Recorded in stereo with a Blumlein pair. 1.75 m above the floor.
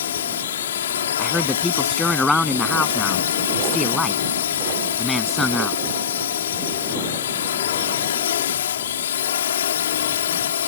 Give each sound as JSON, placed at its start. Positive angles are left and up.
{"t": 0.0, "sound": "a drone", "azimuth_deg": 65}
{"t": 1.2, "sound": "a man speaking", "azimuth_deg": 5}